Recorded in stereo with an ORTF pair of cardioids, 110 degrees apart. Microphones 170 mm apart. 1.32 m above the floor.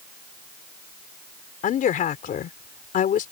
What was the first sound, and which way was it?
A woman speaking, 55° left.